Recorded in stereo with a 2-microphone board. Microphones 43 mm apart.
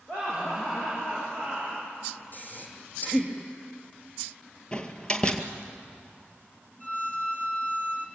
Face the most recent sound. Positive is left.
turn(degrees=30)  # may be behind; listen again after turning